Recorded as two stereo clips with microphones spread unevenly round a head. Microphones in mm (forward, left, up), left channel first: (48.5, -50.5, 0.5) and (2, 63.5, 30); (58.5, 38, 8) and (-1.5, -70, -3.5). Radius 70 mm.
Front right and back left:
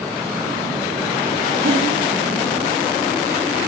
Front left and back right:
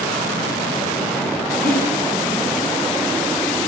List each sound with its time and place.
1.6 s breathing: 140° left, 5.5 m